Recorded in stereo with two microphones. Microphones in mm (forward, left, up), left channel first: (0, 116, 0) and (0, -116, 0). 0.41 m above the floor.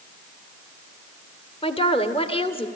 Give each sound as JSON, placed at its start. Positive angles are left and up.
{"t": 1.6, "sound": "a woman speaking", "side_deg": 20, "distance_m": 1.2}